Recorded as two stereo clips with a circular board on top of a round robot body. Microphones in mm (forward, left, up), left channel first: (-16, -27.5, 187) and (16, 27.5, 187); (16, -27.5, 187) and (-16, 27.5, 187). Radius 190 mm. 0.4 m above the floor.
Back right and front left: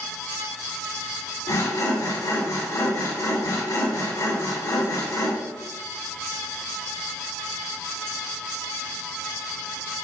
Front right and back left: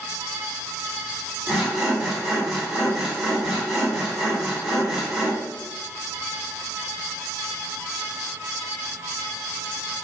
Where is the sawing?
150° right, 0.9 m.